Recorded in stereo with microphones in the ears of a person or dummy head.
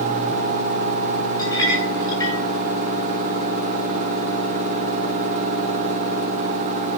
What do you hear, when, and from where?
1.4 s a clink: 20° left (ahead or behind), 7 m